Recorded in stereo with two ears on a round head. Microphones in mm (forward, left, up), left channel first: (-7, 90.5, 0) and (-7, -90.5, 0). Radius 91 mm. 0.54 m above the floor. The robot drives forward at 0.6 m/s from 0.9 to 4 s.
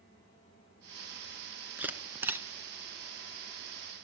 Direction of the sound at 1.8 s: 10° right (ahead or behind).